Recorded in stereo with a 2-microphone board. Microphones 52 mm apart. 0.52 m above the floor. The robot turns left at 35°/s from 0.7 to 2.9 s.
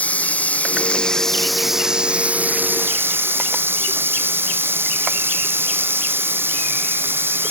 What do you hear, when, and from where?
0.0 s running water: 30° left; by 7.5 s 50° right